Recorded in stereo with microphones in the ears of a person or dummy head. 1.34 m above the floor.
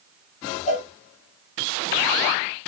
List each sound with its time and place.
0.7 s a cowbell: 40° left (ahead or behind), 1.0 m